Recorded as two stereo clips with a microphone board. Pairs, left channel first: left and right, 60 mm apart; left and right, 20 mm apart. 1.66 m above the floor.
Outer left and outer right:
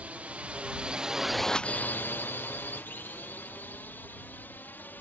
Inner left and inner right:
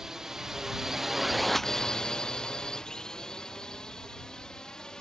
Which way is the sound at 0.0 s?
25° right (ahead or behind).